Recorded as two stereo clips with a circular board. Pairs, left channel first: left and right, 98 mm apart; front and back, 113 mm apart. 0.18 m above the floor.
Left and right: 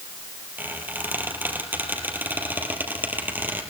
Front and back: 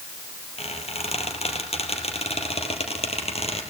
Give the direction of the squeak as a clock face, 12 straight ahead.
1 o'clock.